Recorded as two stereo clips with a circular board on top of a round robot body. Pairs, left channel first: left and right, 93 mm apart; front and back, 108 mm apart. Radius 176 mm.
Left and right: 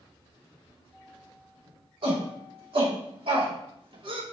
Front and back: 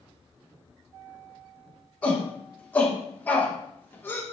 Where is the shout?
75° right, 4.5 m; by 4.2 s 65° right, 2 m.